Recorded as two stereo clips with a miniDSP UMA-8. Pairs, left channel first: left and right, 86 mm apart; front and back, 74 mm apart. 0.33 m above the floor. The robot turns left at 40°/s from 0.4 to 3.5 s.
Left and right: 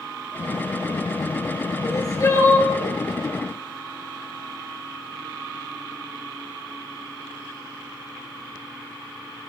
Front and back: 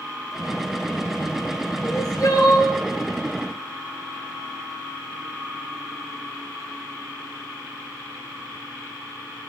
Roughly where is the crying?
Ahead left.